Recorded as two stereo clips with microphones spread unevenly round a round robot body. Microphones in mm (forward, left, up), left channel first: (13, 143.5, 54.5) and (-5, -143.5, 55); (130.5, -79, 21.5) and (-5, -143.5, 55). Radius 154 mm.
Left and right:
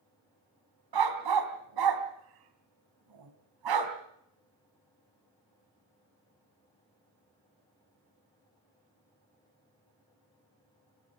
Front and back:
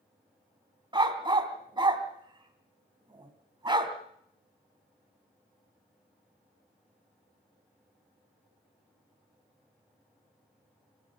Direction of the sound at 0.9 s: 100° right.